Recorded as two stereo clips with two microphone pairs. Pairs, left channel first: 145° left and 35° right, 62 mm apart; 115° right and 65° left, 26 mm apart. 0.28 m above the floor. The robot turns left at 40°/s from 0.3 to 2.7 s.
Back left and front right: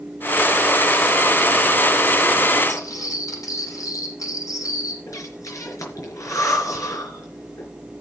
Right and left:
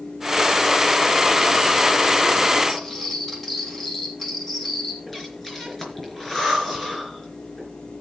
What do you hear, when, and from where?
2.7 s cutlery clinking: 170° left, 6 m
5.1 s breathing: 170° left, 4 m